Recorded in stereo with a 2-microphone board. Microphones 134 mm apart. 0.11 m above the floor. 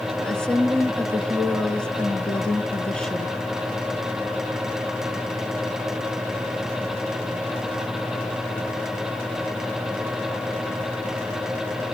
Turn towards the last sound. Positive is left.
turn(degrees=5)  # may be behind; listen again after turning